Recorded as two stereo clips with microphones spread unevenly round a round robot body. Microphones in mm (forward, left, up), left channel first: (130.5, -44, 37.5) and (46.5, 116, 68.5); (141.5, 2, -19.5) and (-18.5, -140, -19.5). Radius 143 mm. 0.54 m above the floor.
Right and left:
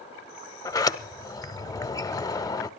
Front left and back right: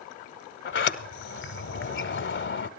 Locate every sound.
0.7 s a sliding door: 10° left, 1.2 m